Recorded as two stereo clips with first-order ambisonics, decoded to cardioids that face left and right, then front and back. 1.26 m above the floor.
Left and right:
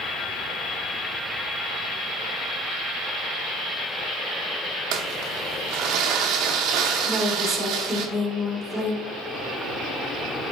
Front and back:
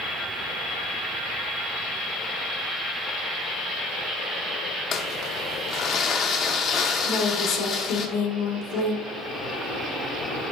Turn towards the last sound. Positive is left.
turn(degrees=0)